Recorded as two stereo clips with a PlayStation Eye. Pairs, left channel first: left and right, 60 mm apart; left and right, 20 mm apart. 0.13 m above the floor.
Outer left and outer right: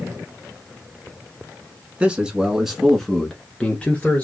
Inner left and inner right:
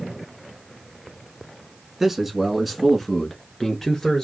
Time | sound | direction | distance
2.0 | a man speaking | 20° right (ahead or behind) | 1.1 m